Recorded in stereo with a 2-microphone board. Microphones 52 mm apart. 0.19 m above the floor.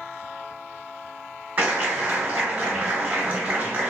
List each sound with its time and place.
1.6 s a clap: 30° right (ahead or behind), 1.1 m